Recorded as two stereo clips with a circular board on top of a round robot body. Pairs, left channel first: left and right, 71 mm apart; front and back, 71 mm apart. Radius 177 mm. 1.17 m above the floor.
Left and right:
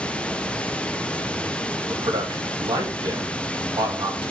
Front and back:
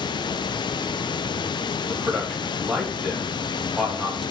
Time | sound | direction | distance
0.0 | running water | 15° left | 0.8 m
1.9 | a man speaking | 95° right | 3.5 m